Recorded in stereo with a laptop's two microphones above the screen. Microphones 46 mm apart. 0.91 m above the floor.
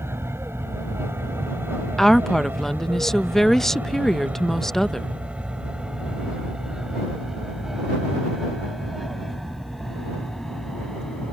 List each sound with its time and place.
0.0 s an aircraft: 70° right (ahead or behind); by 11.3 s 10° left (ahead or behind)
2.0 s a woman speaking: 10° left (ahead or behind)